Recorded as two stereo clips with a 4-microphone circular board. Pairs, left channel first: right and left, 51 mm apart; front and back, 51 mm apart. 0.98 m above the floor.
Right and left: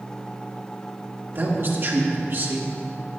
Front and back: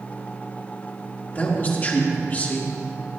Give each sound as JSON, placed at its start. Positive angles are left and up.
{"t": 1.4, "sound": "a man speaking", "azimuth_deg": 55, "distance_m": 2.0}